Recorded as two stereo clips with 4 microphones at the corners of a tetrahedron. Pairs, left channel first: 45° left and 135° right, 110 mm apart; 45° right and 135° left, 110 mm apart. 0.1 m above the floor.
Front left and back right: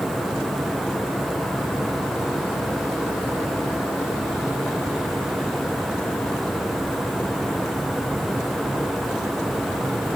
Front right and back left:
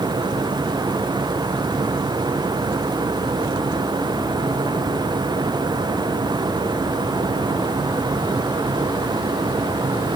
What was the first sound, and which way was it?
Only background noise.